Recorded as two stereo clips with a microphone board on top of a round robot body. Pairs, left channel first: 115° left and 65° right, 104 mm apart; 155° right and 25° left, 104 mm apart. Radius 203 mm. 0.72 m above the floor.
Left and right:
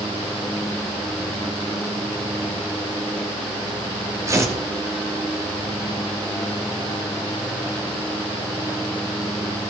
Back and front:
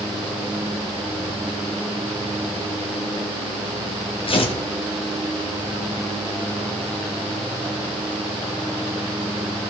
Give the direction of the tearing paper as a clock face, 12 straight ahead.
4 o'clock.